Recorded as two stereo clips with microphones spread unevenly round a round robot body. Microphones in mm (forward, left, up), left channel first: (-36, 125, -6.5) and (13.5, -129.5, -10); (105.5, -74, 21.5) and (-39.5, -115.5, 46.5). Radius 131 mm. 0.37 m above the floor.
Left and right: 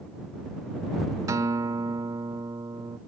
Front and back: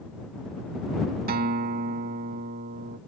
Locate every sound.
1.3 s a guitar: 155° right